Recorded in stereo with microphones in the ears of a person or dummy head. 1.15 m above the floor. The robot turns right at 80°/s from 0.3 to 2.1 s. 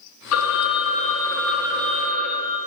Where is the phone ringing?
85° left, 1.2 m; by 2.6 s 135° right, 1.2 m.